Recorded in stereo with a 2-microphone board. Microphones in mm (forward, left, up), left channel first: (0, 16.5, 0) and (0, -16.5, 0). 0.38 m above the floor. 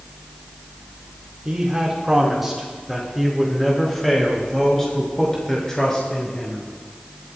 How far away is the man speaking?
About 4 m.